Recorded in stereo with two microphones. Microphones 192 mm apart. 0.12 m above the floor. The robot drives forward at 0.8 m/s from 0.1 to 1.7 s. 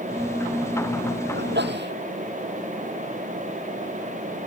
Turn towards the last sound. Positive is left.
turn(degrees=-65)  # may be behind; listen again after turning